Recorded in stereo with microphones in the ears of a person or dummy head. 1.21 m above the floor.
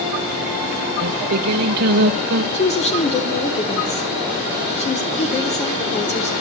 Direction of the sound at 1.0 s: 55° right (ahead or behind).